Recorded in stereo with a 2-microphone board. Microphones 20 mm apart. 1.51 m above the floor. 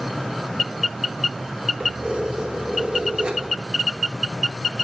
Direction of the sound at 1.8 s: 65° right (ahead or behind).